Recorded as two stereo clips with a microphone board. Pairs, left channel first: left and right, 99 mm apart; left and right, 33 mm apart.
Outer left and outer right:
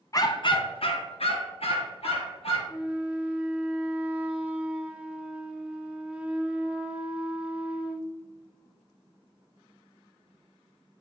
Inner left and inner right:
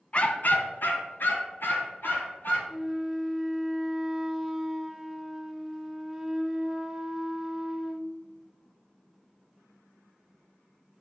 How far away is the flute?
About 0.7 m.